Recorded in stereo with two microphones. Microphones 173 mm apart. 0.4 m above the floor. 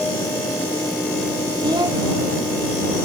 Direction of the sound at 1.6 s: 25° right (ahead or behind).